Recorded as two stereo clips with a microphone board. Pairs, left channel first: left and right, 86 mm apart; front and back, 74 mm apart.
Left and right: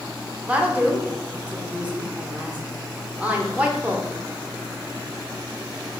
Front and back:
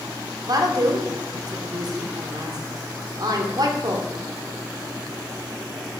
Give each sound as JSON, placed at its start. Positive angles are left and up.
{"t": 0.5, "sound": "a woman speaking", "azimuth_deg": -165, "distance_m": 0.7}